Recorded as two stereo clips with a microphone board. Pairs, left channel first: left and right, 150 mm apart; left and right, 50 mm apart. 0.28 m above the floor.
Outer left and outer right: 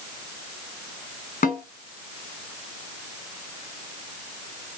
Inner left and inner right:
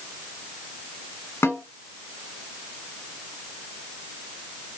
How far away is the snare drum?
About 1.0 m.